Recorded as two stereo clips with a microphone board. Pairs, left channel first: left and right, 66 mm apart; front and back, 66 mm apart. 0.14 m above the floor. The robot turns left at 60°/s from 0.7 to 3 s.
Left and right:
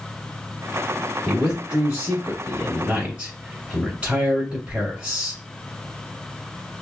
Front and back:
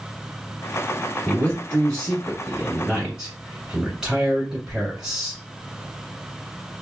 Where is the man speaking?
15° right, 1.4 m; by 5.4 s 120° right, 1.4 m.